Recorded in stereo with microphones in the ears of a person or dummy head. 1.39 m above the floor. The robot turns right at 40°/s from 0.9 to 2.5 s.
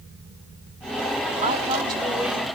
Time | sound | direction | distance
1.4 | a woman speaking | 45° right | 4.5 m